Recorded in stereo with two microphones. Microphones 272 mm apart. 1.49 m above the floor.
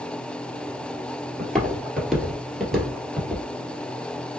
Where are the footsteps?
Centre (ahead or behind), 1.6 m.